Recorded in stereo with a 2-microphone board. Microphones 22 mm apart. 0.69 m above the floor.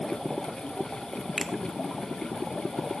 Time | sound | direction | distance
1.4 | a finger snap | centre (ahead or behind) | 0.8 m